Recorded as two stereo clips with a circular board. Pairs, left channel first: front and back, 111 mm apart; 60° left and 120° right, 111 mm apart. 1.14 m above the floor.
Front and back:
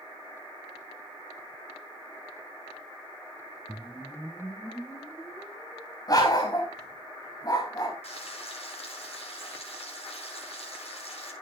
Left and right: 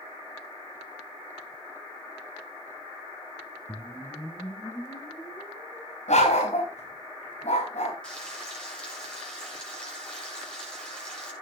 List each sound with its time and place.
3.7 s a whoosh: 60° left, 1.1 m
6.1 s a dog barking: 55° left, 4 m
8.0 s frying: 20° right, 5.5 m